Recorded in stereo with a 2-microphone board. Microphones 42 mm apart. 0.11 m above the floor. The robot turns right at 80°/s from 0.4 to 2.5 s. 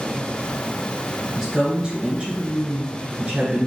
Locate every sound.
1.4 s a woman speaking: 155° right, 1.8 m; by 3.7 s 65° right, 1.8 m